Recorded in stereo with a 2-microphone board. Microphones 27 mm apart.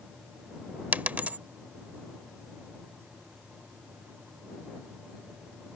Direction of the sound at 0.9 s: 70° right (ahead or behind).